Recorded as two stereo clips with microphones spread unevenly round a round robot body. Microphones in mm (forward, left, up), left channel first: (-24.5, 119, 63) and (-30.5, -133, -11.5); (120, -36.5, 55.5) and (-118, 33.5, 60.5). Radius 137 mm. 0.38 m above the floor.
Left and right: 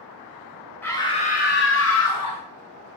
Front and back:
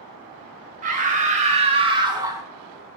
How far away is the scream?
About 1.6 m.